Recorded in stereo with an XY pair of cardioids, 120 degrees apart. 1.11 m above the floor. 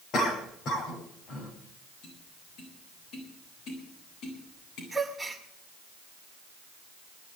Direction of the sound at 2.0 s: 65° left.